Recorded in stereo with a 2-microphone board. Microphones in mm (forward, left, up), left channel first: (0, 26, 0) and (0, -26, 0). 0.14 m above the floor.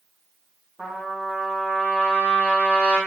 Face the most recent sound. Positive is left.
turn(degrees=-30)  # may be behind; listen again after turning